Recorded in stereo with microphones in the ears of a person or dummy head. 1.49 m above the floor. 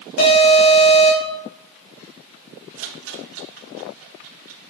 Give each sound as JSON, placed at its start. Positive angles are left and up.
{"t": 0.2, "sound": "an alarm", "side_deg": 50, "distance_m": 5.5}
{"t": 2.8, "sound": "a rattle", "side_deg": -80, "distance_m": 1.9}